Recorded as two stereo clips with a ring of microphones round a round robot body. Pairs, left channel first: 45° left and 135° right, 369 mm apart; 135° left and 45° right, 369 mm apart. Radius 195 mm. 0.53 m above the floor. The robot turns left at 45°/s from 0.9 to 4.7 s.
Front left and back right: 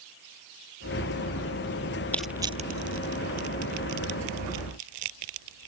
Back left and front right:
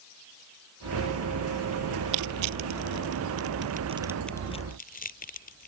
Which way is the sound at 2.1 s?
40° right.